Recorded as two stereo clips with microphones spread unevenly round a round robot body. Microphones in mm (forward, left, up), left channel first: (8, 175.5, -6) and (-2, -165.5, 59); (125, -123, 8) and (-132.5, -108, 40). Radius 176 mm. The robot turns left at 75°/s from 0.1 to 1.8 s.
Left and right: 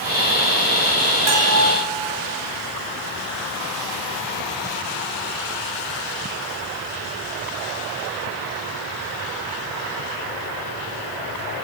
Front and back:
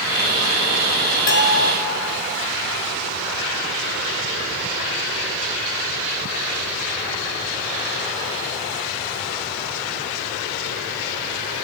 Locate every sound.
1.3 s a bell: 45° right, 4 m; by 1.7 s 75° right, 4 m